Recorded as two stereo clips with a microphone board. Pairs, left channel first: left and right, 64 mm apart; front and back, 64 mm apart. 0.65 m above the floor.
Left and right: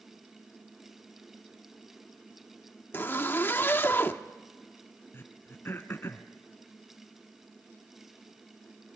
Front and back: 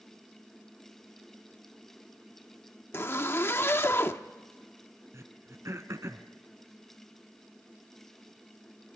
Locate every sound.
2.9 s a zipper: 40° left, 0.9 m
5.1 s throat clearing: 140° left, 1.4 m